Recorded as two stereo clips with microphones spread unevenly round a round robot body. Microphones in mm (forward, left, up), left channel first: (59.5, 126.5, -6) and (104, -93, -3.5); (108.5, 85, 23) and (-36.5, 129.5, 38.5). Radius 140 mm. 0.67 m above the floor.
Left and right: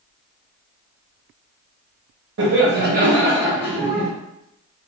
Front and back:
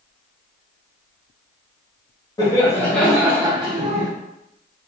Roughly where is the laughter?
Right.